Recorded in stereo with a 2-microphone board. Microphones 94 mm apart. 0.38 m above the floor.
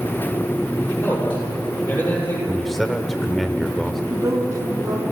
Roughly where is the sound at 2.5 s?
Centre.